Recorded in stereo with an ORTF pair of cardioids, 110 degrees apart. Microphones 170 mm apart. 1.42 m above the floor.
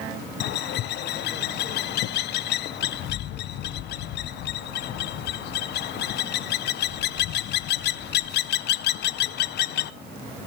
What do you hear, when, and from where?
0.4 s a bird: 65° left, 0.8 m